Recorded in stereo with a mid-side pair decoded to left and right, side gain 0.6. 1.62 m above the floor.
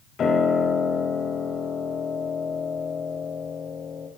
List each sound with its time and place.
0.2 s a piano: 40° left, 5 m